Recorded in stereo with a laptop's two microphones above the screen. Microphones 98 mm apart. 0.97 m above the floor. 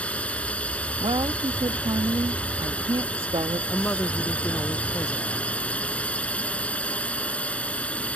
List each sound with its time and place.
0.0 s a drone: 10° left (ahead or behind)
1.0 s a woman speaking: 60° right (ahead or behind)
3.7 s a woman speaking: 25° left (ahead or behind)